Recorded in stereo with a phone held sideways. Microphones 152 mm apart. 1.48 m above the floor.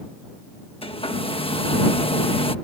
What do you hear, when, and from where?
0.8 s a hair dryer: 40° left (ahead or behind)